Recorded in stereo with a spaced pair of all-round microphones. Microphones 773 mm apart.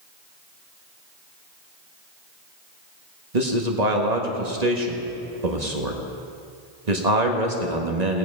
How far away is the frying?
I don't hear frying.